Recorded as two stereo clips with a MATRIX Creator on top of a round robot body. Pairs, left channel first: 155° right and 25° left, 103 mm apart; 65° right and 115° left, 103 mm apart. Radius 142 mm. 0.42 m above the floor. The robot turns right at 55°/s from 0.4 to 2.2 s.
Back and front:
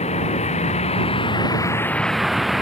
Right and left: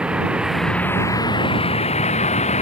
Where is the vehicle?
165° right; by 2.6 s 65° right.